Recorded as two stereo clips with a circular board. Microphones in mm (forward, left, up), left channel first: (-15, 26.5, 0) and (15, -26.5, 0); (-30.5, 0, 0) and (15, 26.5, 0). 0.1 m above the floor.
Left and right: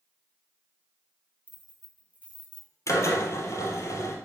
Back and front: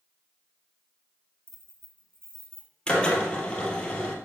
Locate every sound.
1.5 s keys jangling: straight ahead, 1.8 m
2.9 s a drill: 145° left, 1.8 m